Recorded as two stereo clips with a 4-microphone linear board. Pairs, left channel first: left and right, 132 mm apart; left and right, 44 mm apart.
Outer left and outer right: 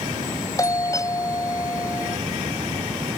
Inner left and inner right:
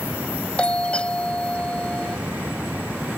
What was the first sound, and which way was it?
A doorbell, 25° left (ahead or behind).